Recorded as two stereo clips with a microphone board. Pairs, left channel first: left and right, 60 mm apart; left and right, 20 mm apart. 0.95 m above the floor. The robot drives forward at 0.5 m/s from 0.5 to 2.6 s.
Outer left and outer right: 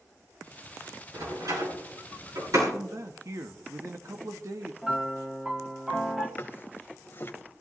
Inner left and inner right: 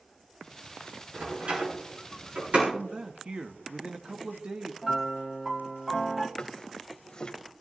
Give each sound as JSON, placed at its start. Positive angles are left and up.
{"t": 1.1, "sound": "a door slam", "side_deg": -65, "distance_m": 8.5}
{"t": 2.7, "sound": "a man speaking", "side_deg": -55, "distance_m": 1.1}
{"t": 4.8, "sound": "a piano", "side_deg": -10, "distance_m": 1.8}
{"t": 6.4, "sound": "a drawer", "side_deg": 35, "distance_m": 1.3}